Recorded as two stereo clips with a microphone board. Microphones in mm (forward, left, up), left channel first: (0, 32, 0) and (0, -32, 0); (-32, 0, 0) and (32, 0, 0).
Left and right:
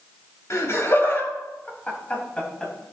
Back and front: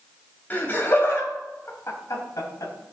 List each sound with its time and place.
0.5 s laughter: 120° left, 2.5 m; by 2.7 s 165° left, 3 m